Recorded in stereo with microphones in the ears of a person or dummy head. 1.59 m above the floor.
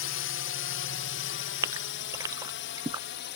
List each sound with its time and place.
0.0 s a drone: 55° left (ahead or behind); by 3.4 s 45° left (ahead or behind)
1.6 s a gasp: 20° right (ahead or behind)